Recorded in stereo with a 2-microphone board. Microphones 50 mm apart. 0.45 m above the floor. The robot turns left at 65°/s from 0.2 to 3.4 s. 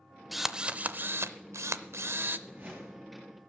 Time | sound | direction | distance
0.3 | a drill | straight ahead | 0.5 m
2.5 | a whoosh | 130° right | 6 m